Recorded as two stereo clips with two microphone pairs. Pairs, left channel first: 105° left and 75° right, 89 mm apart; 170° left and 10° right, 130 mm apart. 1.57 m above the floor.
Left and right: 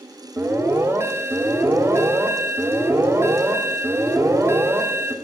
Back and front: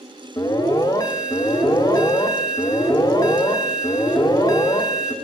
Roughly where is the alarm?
Behind right.